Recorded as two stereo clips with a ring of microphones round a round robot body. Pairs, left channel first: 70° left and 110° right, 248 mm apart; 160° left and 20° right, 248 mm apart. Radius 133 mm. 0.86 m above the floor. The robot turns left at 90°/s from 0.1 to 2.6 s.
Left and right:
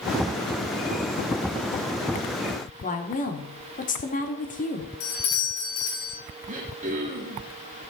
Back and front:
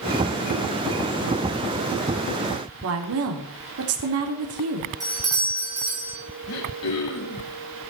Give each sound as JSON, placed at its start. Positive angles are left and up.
{"t": 2.8, "sound": "a woman speaking", "azimuth_deg": 10, "distance_m": 2.0}
{"t": 5.0, "sound": "a doorbell", "azimuth_deg": 55, "distance_m": 4.5}
{"t": 6.5, "sound": "throat clearing", "azimuth_deg": -175, "distance_m": 3.0}